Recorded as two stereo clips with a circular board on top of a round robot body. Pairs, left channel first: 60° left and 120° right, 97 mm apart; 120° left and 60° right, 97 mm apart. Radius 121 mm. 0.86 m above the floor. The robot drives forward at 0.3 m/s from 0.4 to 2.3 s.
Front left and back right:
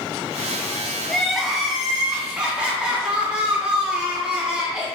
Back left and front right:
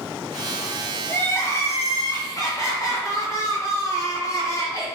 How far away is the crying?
About 0.7 m.